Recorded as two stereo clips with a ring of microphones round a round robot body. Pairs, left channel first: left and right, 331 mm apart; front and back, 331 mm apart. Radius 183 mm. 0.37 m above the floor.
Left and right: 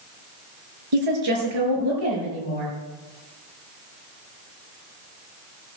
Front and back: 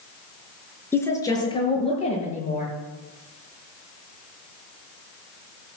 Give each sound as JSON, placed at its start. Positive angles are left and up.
{"t": 0.9, "sound": "a woman speaking", "azimuth_deg": -85, "distance_m": 5.5}